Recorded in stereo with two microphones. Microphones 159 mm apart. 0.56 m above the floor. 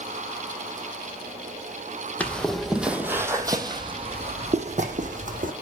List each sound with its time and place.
2.2 s footsteps: 10° left (ahead or behind), 1.3 m; by 5.5 s 60° right (ahead or behind), 1.8 m